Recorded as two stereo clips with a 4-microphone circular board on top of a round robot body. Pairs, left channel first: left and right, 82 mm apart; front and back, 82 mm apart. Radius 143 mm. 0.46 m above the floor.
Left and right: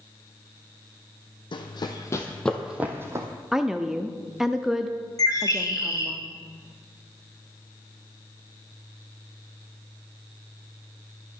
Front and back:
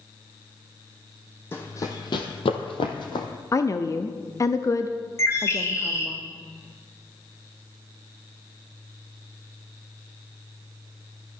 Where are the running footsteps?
65° left, 1.4 m; by 3.3 s 35° right, 1.4 m.